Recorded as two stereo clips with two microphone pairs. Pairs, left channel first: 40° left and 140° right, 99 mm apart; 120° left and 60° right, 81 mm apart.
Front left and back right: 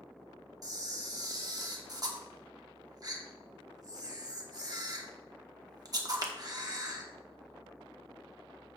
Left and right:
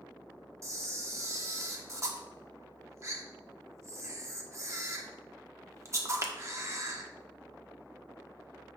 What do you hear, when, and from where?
0.6 s a camera shutter: 100° right, 1.1 m